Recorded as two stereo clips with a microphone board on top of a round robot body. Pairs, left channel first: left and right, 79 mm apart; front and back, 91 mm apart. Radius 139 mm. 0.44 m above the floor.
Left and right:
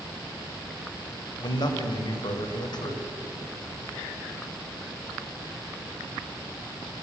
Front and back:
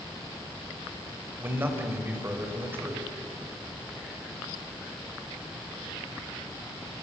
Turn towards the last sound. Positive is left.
turn(degrees=115)